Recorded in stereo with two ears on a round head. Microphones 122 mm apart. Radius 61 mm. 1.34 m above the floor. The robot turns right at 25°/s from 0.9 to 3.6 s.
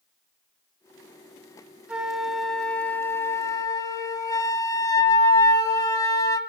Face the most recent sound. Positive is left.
turn(degrees=35)